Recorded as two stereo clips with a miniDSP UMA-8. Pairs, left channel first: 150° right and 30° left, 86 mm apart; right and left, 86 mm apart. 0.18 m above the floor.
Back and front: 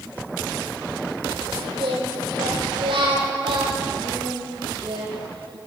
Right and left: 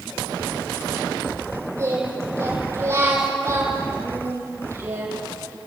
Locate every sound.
1.8 s singing: 35° left, 6.5 m